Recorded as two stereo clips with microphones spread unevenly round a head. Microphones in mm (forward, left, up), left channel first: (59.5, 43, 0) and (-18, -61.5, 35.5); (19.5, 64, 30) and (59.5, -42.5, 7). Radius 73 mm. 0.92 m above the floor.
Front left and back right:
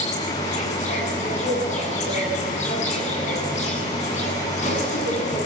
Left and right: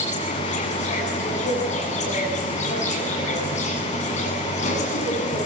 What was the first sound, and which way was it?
An insect, 95° left.